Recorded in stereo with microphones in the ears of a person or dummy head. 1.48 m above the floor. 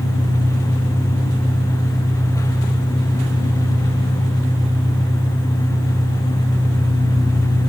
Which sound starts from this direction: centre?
An engine running, at 0.0 s.